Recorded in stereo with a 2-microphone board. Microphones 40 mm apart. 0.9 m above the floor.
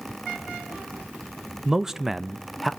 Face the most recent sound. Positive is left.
turn(degrees=0)  # may be behind; listen again after turning